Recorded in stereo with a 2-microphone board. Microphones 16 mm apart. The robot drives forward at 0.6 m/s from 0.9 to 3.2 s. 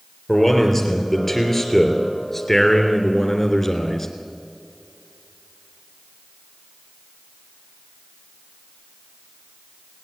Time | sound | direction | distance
0.3 | a man speaking | 10° left (ahead or behind) | 4.5 m